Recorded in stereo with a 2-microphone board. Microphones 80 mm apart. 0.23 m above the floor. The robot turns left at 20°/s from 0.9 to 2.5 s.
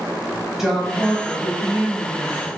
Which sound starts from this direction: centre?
A woman speaking, at 0.6 s.